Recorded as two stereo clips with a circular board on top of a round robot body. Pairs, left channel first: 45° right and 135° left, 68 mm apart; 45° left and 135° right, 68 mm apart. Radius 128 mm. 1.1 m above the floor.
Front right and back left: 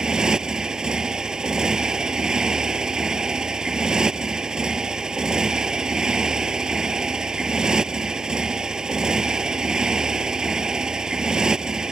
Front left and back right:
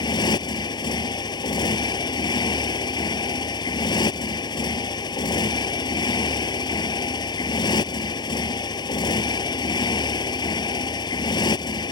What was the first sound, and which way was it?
A motorcycle, 55° left.